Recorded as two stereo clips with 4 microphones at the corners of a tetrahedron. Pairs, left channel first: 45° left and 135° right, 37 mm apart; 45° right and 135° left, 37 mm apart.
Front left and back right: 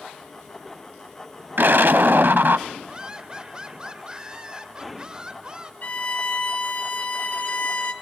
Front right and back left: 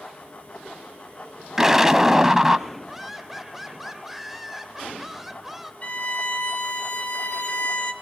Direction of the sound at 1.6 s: 150° right.